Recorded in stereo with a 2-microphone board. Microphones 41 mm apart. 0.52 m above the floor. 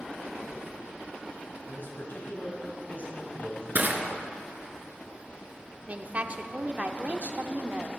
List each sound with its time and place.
1.7 s a man speaking: 60° left (ahead or behind), 3.5 m; by 3.6 s 40° left (ahead or behind), 3.5 m
3.8 s crushing: 50° right (ahead or behind), 1.6 m
5.9 s a woman speaking: 35° right (ahead or behind), 0.9 m